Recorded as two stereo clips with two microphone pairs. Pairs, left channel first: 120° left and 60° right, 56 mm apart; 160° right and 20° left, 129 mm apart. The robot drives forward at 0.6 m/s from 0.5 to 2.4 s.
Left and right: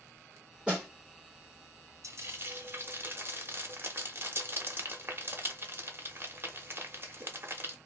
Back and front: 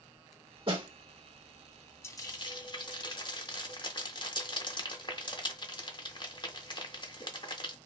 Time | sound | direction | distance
0.7 | a snare drum | 5° left | 1.6 m
2.0 | frying | 90° right | 0.7 m